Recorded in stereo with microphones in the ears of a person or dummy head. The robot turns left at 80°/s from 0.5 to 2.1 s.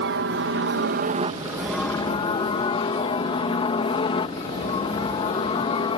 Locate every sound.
0.0 s a helicopter: 60° right (ahead or behind); by 6.0 s 25° left (ahead or behind)